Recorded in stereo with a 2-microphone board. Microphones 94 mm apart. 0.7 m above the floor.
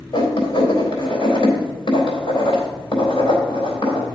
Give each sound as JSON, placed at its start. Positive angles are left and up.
{"t": 0.1, "sound": "writing", "side_deg": 70, "distance_m": 3.5}